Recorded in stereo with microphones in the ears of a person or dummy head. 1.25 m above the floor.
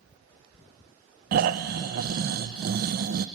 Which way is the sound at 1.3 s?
50° right (ahead or behind).